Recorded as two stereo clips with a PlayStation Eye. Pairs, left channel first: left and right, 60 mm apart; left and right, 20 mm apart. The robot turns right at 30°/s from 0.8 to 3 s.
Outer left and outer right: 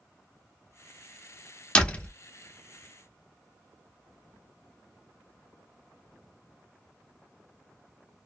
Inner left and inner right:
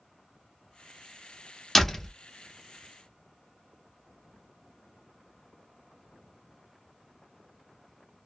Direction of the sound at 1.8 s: 15° left (ahead or behind).